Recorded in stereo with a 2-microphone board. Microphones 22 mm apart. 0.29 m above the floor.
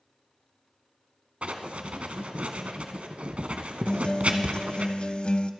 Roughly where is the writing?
Right.